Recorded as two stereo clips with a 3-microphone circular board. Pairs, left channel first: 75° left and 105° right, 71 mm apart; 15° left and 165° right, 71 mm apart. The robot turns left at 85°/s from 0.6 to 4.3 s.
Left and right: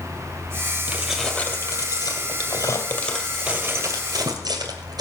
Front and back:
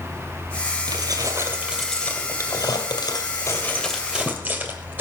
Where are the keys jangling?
170° right, 2 m; by 5.0 s 100° right, 2 m.